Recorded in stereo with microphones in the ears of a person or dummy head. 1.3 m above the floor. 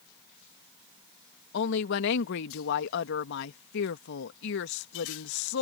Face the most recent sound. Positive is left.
turn(degrees=60)  # may be behind; listen again after turning